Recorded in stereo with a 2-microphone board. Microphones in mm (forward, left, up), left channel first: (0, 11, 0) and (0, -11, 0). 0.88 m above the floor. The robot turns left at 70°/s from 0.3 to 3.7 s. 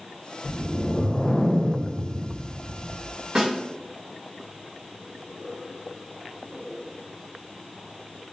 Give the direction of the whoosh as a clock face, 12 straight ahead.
8 o'clock.